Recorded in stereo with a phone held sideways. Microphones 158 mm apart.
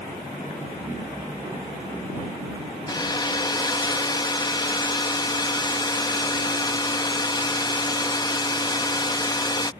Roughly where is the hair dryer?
Left.